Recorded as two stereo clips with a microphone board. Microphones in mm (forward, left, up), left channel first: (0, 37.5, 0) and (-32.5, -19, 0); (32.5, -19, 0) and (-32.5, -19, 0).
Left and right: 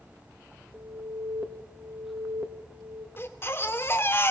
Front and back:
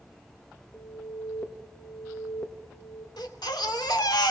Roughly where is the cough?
I don't hear a cough.